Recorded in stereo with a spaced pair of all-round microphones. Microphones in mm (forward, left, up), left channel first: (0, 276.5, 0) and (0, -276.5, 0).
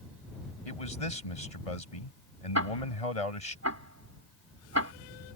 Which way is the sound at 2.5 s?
25° right (ahead or behind).